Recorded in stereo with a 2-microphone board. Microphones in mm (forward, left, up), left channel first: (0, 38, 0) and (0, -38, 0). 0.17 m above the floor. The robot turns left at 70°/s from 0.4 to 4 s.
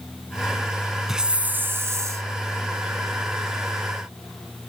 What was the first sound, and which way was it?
A hiss, 5° right.